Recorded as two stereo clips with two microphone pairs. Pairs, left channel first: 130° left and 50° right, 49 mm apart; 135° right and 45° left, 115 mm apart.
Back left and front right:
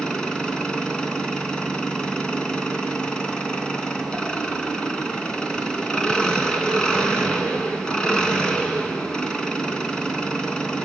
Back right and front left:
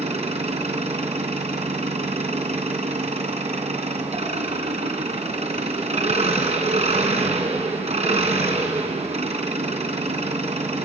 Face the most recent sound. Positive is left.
turn(degrees=60)